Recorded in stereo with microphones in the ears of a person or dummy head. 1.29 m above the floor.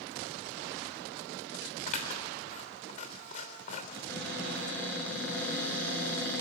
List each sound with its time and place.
1.9 s scissors: 40° left (ahead or behind), 3.5 m
3.9 s a cupboard door: 10° left (ahead or behind), 9 m